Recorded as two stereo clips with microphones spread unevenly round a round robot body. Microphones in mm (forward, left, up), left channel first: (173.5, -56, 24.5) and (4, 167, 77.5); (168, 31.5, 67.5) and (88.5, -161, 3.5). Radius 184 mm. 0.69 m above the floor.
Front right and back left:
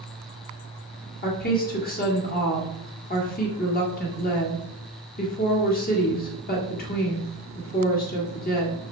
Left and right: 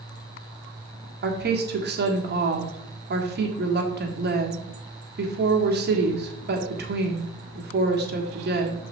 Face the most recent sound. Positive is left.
turn(degrees=-105)